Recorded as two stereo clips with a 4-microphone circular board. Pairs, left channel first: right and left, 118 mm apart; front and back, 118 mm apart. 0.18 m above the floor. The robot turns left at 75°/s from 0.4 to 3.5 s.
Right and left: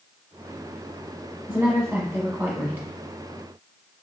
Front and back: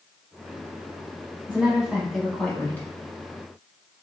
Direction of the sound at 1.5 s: 140° left.